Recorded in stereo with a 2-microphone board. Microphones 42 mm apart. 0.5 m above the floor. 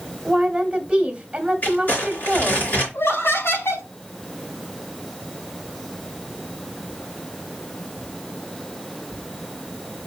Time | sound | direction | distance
0.2 | a woman speaking | 20° right (ahead or behind) | 1.2 m
1.6 | crumpling | 40° left (ahead or behind) | 3.5 m
2.9 | laughter | 70° left (ahead or behind) | 3 m